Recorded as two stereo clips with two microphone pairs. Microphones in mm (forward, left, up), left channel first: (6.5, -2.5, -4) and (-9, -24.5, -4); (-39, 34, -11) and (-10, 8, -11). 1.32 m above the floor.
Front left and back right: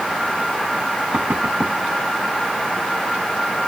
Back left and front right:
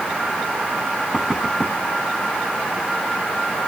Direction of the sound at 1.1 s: 120° right.